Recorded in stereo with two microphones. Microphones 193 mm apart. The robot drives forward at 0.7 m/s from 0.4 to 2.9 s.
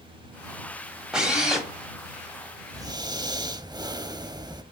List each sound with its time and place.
1.1 s a drill: 5° right (ahead or behind), 1.2 m
2.7 s breathing: 20° right (ahead or behind), 0.6 m